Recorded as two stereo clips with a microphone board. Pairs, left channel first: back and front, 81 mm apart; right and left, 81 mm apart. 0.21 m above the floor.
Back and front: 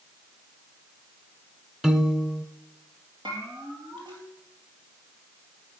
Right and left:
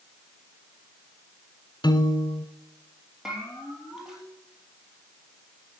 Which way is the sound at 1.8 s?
85° right.